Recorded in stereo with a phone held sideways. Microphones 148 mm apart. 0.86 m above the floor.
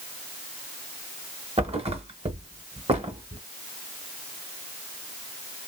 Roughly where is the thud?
Right.